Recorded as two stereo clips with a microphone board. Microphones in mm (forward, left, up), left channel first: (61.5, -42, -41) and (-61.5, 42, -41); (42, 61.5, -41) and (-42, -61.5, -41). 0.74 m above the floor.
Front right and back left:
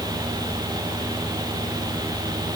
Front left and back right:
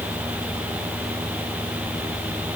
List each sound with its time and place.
Only background noise.